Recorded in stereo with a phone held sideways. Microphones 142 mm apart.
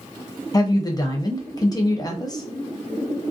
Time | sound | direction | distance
0.5 | a woman speaking | 25° left (ahead or behind) | 0.7 m